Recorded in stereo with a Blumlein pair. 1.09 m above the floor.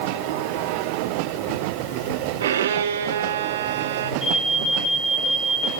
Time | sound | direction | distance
2.4 | a violin | 60° right | 1.3 m
4.2 | an alarm | 15° left | 9.5 m